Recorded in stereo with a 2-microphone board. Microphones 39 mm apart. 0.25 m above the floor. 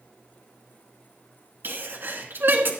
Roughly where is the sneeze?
Right.